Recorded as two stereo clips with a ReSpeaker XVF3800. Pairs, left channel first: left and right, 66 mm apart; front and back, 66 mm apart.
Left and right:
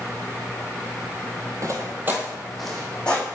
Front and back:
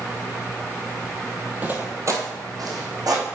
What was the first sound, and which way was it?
Footsteps, 115° right.